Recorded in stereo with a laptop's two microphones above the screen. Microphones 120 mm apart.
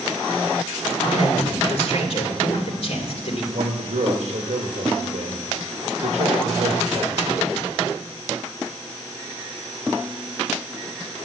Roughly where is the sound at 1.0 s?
Left.